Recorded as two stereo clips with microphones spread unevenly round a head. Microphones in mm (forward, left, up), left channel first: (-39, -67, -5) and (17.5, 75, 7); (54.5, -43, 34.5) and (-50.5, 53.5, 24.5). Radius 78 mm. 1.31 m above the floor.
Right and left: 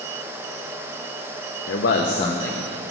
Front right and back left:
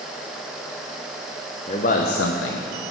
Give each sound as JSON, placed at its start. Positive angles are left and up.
{"t": 1.7, "sound": "a man speaking", "azimuth_deg": -100, "distance_m": 0.6}